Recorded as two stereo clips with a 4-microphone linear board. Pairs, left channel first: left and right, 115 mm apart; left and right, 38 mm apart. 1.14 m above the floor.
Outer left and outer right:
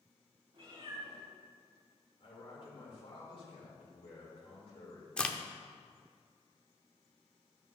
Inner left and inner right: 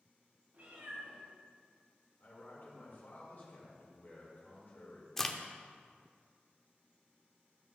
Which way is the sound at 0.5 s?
50° right (ahead or behind).